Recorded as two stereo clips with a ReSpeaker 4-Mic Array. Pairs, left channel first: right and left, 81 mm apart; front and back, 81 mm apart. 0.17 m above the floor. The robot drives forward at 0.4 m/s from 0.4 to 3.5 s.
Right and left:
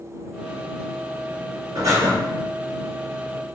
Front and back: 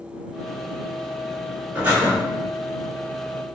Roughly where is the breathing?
Behind left.